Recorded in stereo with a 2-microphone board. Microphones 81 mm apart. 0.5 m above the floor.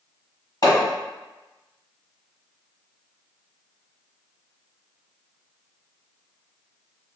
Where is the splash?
I don't hear a splash.